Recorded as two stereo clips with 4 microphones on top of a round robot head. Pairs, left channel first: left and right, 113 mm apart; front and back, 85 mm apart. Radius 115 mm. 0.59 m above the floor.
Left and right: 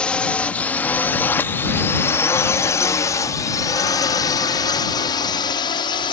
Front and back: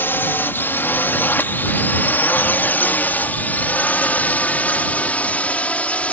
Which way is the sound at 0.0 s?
20° left.